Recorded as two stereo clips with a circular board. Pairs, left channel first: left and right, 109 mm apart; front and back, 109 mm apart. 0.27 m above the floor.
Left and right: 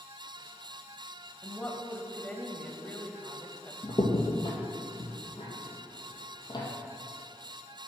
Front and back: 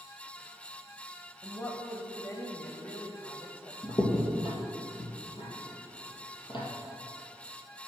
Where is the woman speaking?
25° left, 1.0 m.